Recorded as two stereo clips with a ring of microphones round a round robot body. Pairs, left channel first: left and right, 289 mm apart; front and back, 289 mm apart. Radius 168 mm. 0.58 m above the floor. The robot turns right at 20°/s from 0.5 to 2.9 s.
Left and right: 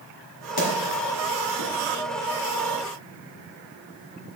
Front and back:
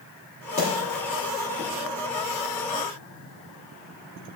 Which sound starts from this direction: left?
A splash, at 0.6 s.